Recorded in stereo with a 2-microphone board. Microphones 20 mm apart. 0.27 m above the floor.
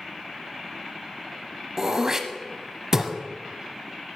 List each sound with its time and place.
1.8 s throat clearing: 30° right (ahead or behind), 1.0 m